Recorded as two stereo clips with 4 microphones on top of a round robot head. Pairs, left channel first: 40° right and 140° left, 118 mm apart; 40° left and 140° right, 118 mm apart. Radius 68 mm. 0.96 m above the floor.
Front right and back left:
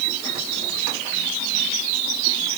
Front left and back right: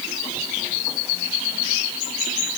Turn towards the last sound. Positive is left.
No sound to turn to.